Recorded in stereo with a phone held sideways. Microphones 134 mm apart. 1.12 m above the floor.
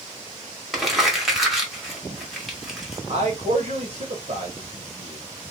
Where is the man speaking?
50° right (ahead or behind), 1.3 m.